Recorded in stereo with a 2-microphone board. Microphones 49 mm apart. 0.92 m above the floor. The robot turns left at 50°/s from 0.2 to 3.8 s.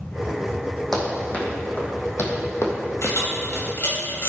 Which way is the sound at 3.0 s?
85° left.